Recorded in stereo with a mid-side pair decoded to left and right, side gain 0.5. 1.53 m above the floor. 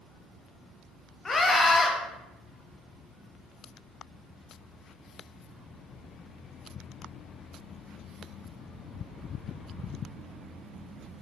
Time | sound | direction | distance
1.2 | a scream | 30° left | 0.8 m